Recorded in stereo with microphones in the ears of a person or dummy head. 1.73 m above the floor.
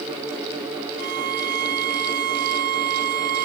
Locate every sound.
1.0 s a violin: 55° right (ahead or behind)